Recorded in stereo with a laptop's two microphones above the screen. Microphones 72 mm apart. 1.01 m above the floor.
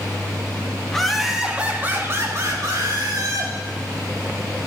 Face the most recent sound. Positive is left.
turn(degrees=-60)  # may be behind; listen again after turning